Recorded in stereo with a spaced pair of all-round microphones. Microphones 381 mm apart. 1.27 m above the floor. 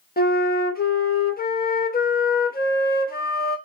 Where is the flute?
25° left (ahead or behind), 0.7 m.